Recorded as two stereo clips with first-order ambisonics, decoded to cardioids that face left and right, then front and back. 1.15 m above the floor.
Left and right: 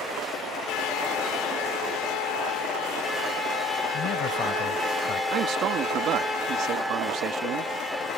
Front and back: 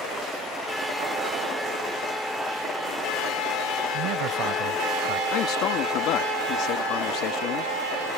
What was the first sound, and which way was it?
A man speaking, 145° left.